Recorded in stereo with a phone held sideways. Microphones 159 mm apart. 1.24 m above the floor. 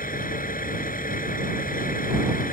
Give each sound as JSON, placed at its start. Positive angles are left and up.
{"t": 0.0, "sound": "a vehicle", "side_deg": 60}